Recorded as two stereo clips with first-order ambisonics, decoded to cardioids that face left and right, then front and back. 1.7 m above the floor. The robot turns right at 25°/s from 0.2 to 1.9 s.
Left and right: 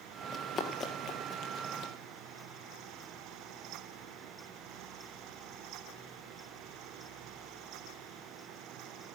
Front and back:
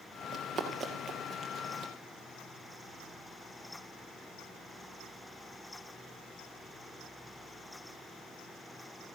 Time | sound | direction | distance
0.3 | running footsteps | 130° left | 1.8 m